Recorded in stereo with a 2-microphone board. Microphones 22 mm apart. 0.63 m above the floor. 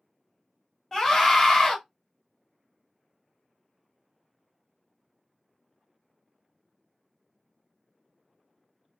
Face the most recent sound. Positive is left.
turn(degrees=20)  # may be behind; listen again after turning